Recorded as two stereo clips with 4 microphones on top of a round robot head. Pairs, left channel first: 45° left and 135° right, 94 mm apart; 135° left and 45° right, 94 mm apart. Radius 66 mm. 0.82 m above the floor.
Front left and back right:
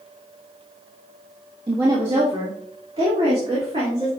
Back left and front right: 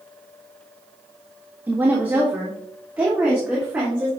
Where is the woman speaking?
110° right, 1.5 m; by 4.1 s 120° right, 3 m.